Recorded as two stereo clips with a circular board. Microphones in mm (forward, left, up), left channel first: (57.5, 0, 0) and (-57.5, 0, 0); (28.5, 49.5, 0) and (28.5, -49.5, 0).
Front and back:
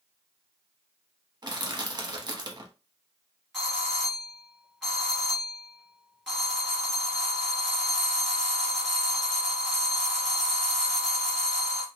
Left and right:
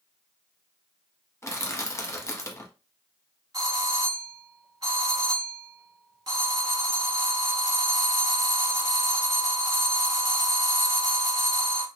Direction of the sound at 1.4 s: 140° left.